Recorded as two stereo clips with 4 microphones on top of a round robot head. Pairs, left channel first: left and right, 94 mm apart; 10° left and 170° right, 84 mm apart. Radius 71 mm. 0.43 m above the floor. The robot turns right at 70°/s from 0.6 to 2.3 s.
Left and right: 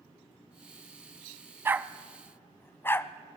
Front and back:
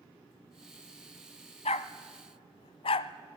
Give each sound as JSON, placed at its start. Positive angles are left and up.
{"t": 1.6, "sound": "a dog barking", "azimuth_deg": -25, "distance_m": 0.7}